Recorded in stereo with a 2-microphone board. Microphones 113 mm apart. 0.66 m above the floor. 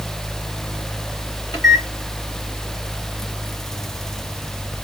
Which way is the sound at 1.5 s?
35° left (ahead or behind).